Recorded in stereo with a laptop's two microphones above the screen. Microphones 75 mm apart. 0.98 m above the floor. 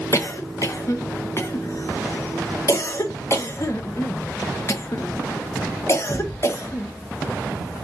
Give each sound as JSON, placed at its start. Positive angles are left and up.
{"t": 0.1, "sound": "a cough", "side_deg": 40, "distance_m": 0.5}